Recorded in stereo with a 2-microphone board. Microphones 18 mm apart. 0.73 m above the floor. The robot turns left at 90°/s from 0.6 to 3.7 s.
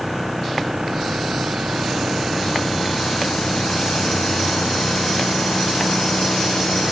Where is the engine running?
10° right; by 6.9 s 75° left.